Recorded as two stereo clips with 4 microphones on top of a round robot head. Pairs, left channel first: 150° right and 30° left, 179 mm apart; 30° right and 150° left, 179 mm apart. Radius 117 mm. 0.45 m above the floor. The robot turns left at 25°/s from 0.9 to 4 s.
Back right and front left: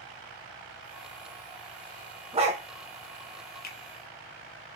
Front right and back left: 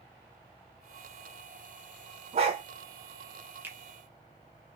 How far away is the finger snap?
About 1.0 m.